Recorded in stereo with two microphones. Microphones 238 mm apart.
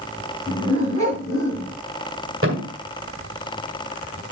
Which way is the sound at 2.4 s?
60° right (ahead or behind).